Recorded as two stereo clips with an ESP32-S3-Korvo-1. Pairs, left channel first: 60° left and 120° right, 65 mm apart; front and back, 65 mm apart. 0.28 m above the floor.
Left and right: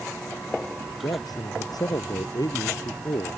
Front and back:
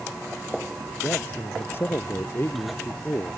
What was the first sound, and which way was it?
A man speaking, 55° left.